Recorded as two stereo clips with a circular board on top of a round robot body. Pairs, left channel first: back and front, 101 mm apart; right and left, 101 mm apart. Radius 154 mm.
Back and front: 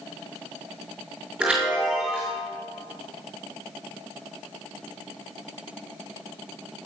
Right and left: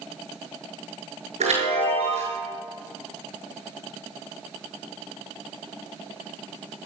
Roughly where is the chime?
Left.